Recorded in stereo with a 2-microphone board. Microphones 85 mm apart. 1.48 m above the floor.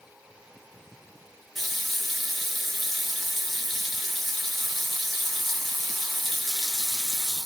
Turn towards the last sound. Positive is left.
turn(degrees=0)  # may be behind; listen again after turning